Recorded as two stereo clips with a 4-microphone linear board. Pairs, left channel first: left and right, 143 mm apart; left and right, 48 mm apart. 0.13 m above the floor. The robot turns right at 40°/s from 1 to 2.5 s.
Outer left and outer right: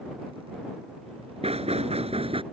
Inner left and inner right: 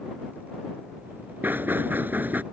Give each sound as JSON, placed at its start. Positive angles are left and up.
{"t": 1.4, "sound": "knocking", "azimuth_deg": -100}